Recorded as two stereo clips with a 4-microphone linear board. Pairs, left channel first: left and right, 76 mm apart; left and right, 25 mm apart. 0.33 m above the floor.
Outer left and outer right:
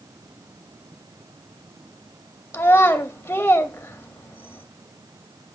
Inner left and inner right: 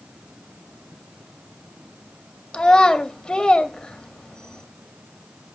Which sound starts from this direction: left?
A child speaking, at 2.5 s.